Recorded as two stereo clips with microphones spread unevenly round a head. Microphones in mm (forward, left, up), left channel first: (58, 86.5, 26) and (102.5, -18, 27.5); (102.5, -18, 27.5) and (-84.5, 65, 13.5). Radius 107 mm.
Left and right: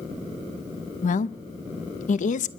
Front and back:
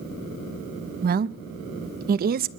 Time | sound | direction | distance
1.0 | a woman speaking | 110° left | 0.8 m